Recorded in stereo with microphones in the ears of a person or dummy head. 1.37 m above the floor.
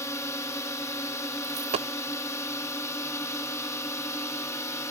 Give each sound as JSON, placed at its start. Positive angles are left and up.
{"t": 0.0, "sound": "a drone", "side_deg": 10}
{"t": 1.4, "sound": "a dropped coin", "side_deg": -25}